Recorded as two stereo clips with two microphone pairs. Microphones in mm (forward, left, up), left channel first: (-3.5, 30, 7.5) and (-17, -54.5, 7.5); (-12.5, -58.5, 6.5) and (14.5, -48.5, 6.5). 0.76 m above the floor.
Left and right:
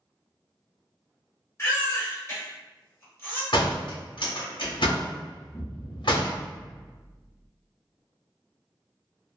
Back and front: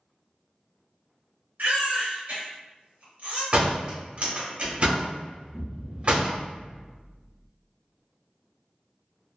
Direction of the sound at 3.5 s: 65° left.